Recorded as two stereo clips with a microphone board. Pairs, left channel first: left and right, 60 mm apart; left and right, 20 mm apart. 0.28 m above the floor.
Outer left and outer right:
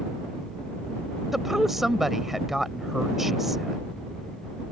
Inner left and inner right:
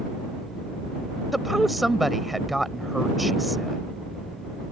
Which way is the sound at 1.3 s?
5° right (ahead or behind).